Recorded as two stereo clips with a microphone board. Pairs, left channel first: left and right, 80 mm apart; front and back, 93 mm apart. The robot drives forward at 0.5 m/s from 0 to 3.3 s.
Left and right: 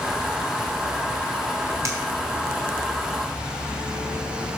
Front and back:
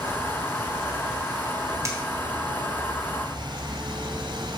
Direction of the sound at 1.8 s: 130° right.